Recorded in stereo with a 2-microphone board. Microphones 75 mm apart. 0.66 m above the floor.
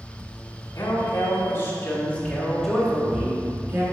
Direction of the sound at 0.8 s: 45° left (ahead or behind).